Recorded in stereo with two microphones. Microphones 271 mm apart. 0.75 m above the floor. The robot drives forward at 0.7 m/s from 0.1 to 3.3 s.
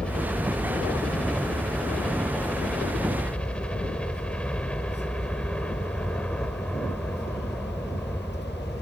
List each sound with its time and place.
0.0 s a helicopter: 5° left (ahead or behind)